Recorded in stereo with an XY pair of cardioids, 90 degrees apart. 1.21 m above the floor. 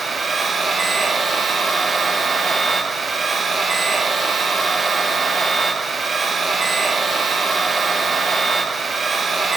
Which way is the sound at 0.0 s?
45° right.